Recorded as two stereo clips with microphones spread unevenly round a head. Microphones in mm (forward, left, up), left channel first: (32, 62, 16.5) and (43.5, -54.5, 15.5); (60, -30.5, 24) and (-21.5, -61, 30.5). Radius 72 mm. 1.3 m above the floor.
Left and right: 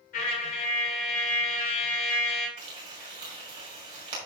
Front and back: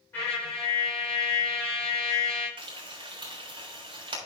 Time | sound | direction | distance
0.1 | a trumpet | 95° left | 3 m
2.6 | frying | 140° right | 3.5 m